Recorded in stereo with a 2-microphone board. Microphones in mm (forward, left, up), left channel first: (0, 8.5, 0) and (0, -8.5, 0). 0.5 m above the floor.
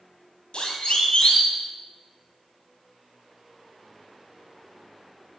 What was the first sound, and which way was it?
A siren, 70° left (ahead or behind).